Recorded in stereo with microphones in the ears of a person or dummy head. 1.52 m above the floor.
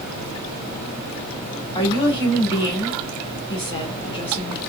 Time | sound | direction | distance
1.8 | a woman speaking | 25° left (ahead or behind) | 2 m